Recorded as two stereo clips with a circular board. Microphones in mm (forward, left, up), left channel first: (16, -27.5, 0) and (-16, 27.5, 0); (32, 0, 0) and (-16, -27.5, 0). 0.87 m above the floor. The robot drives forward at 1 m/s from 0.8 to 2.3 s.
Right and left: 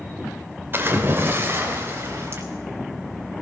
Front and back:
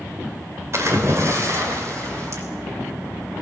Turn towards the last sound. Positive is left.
turn(degrees=175)